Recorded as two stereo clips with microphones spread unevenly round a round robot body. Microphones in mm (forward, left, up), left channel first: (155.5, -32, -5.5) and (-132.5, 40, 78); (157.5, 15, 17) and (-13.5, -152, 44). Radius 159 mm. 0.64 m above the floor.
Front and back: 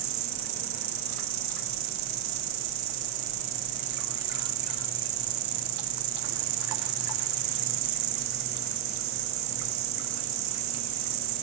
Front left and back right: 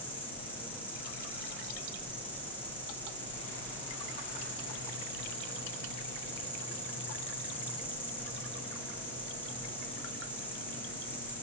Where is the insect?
130° left, 1.4 m.